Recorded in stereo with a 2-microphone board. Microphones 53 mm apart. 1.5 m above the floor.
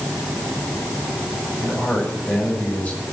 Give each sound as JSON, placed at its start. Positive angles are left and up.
{"t": 1.6, "sound": "a man speaking", "side_deg": 25, "distance_m": 8.0}